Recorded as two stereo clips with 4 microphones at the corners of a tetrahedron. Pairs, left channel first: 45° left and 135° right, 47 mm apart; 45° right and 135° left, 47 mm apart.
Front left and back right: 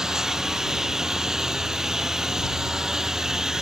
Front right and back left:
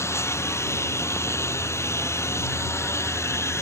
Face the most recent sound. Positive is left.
turn(degrees=-60)